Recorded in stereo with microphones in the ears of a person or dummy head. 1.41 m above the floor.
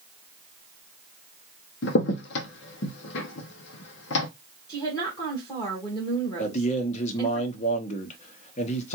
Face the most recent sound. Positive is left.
turn(degrees=40)  # may be behind; listen again after turning